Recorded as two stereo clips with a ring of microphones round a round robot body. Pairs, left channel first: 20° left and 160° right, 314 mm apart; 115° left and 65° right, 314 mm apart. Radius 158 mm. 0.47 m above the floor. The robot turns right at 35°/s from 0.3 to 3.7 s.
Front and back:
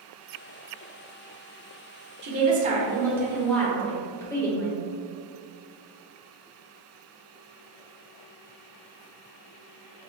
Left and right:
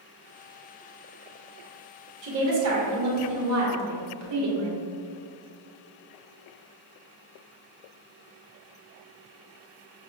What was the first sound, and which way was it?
A woman speaking, 110° right.